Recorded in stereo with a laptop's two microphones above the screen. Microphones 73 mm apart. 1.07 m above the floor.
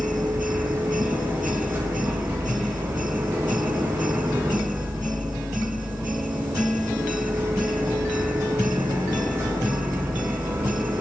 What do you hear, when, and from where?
0.0 s a machine running: 30° right (ahead or behind), 9 m